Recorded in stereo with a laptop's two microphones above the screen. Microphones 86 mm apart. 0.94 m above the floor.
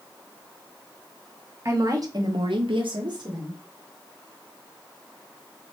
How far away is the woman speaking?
About 1.3 m.